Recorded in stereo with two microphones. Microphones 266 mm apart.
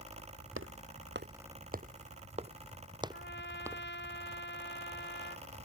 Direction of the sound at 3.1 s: 40° left (ahead or behind).